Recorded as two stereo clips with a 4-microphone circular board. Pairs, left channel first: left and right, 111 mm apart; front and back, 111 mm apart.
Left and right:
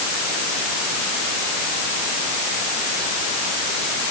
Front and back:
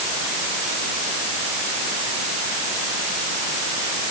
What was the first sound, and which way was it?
Only background noise.